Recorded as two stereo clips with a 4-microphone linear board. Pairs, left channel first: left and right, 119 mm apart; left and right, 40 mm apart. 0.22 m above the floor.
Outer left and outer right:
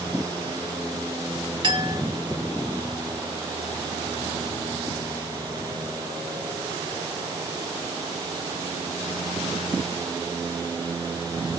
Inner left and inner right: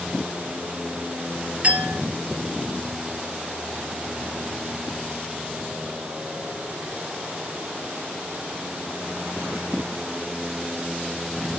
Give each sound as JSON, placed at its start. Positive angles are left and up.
{"t": 1.6, "sound": "a clink", "side_deg": -40, "distance_m": 1.2}